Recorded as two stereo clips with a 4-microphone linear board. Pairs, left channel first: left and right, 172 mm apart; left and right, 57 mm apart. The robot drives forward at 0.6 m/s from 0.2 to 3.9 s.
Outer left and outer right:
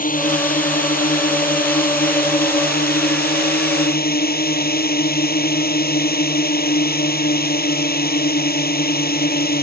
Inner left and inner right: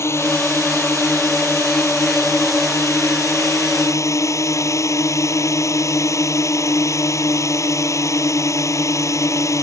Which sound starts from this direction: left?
A drone, at 0.0 s.